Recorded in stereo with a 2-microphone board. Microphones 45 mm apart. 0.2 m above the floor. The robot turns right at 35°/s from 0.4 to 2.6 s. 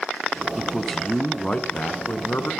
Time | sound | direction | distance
0.6 | a man speaking | 5° right | 2.0 m